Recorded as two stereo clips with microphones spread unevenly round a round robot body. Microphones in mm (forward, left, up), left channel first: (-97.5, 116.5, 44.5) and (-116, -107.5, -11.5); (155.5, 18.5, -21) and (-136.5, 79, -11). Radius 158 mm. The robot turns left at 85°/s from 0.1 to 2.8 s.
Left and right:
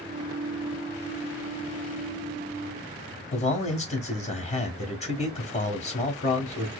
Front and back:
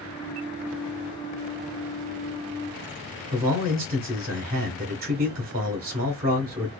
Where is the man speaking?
140° left, 0.9 m.